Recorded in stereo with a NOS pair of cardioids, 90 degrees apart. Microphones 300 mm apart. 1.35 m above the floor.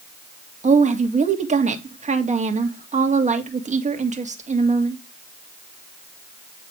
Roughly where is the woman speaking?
Ahead right.